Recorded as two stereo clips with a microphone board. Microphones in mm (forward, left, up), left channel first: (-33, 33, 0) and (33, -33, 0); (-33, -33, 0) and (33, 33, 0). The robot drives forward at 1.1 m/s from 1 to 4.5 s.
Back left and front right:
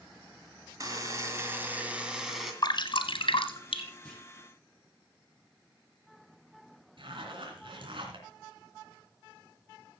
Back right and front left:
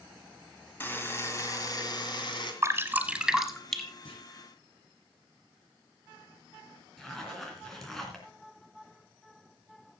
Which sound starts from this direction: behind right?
A clunk, at 4.0 s.